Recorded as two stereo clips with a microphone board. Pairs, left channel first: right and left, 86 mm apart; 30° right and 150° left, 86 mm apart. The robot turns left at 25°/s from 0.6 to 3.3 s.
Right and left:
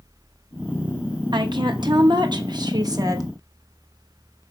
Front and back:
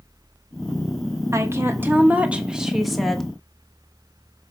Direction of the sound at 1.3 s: 100° left.